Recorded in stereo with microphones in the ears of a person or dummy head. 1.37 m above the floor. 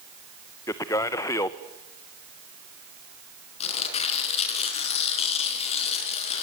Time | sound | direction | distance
0.7 | a man speaking | 20° left (ahead or behind) | 0.8 m
3.6 | tearing paper | 35° left (ahead or behind) | 4.5 m